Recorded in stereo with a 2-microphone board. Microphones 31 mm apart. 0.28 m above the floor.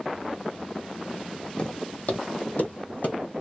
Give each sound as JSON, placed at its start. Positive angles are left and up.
{"t": 1.6, "sound": "footsteps", "side_deg": 30, "distance_m": 0.7}